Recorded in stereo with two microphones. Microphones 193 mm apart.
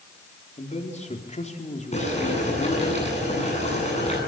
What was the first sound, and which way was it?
A man speaking, 40° left (ahead or behind).